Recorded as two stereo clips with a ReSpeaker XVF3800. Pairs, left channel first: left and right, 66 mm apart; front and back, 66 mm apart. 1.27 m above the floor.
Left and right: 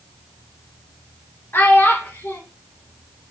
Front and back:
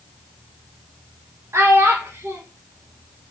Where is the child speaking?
140° left, 0.6 m.